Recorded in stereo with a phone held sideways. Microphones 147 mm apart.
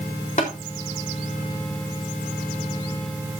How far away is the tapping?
About 4 m.